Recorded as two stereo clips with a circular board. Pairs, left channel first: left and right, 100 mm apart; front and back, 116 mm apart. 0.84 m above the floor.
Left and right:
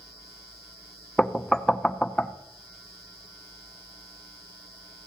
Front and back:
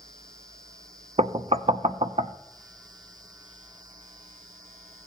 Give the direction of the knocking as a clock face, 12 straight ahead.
6 o'clock.